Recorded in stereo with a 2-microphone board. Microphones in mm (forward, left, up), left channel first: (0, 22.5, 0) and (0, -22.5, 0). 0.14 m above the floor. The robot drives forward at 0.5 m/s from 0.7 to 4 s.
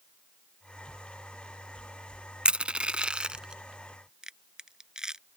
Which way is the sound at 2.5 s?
25° right (ahead or behind).